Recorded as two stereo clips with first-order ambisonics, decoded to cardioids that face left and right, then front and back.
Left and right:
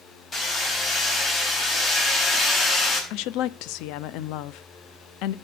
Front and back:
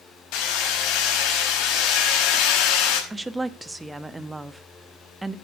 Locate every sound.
0.3 s hammering: 20° left, 5 m
3.1 s a woman speaking: 100° left, 0.7 m